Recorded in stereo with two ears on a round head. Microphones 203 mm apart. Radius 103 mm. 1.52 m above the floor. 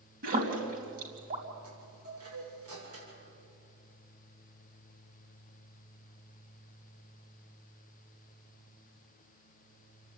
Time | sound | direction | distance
0.2 | a splash | 45° right (ahead or behind) | 4 m
1.6 | a chime | 80° right | 7 m